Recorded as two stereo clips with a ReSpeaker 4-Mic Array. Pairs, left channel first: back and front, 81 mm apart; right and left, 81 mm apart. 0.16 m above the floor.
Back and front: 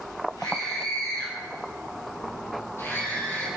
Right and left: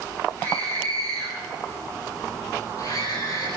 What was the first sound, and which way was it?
A scream, 150° right.